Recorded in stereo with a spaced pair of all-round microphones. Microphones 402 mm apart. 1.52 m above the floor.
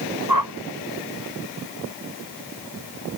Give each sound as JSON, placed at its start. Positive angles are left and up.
{"t": 0.3, "sound": "a whoosh", "side_deg": -60}